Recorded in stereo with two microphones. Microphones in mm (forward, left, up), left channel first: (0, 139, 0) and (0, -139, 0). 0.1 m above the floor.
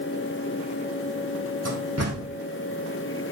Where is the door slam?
60° right (ahead or behind), 3 m.